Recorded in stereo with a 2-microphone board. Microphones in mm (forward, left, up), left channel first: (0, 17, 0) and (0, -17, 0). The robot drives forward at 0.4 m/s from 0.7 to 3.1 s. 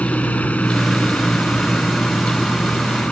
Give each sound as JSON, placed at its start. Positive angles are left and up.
{"t": 0.0, "sound": "a helicopter", "side_deg": 45}